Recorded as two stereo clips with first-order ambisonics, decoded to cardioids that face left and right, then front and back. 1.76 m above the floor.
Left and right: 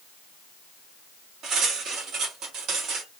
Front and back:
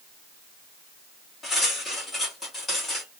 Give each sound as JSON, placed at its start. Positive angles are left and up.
{"t": 1.4, "sound": "cutlery clinking", "azimuth_deg": -70, "distance_m": 1.3}